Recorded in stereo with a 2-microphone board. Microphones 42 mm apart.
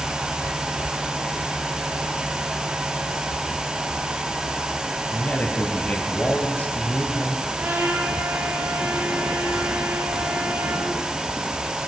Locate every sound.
5.1 s a man speaking: 35° left (ahead or behind), 2.5 m
7.6 s a trumpet: 75° right (ahead or behind), 5.5 m